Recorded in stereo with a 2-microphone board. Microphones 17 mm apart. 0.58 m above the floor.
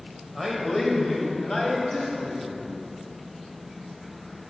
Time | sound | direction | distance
0.3 | a man speaking | centre (ahead or behind) | 2 m